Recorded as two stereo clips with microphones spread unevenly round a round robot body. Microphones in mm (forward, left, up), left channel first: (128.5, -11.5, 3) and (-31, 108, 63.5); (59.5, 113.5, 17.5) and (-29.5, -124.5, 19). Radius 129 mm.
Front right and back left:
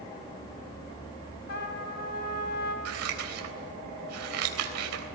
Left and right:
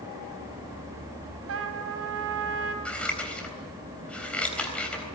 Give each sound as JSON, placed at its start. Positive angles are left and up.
{"t": 1.5, "sound": "a trumpet", "azimuth_deg": -75, "distance_m": 3.0}
{"t": 2.9, "sound": "scissors", "azimuth_deg": 155, "distance_m": 4.0}